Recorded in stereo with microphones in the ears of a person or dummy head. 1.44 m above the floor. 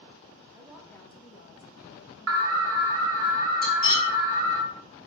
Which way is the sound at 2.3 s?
80° right.